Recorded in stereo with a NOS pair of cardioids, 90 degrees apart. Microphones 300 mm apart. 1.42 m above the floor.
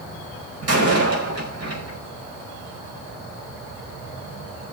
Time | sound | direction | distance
0.6 | a door slam | 55° right | 5 m